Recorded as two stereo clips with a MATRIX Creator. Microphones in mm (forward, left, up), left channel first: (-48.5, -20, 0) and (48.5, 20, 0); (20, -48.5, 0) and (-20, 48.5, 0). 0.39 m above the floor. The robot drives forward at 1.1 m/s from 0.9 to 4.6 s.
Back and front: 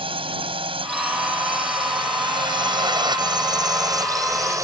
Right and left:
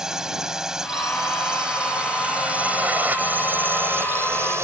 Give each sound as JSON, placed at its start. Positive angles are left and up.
{"t": 0.0, "sound": "a drone", "azimuth_deg": 30}